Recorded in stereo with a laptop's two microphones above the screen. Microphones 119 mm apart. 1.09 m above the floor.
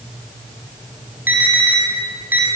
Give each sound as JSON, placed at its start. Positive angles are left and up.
{"t": 1.3, "sound": "an alarm", "side_deg": -15, "distance_m": 7.5}